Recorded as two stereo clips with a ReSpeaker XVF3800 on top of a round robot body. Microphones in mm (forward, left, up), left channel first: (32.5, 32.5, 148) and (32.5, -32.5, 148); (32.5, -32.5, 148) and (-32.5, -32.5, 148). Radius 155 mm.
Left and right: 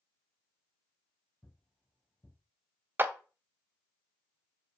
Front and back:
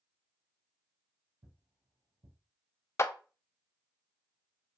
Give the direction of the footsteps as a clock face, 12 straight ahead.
6 o'clock.